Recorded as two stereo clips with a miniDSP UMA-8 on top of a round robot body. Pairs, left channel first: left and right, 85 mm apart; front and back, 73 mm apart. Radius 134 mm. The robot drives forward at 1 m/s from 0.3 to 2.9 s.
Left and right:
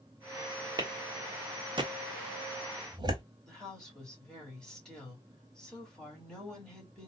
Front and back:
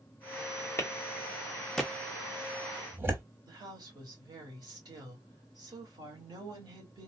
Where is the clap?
50° right, 2.0 m; by 3.2 s 120° right, 1.8 m.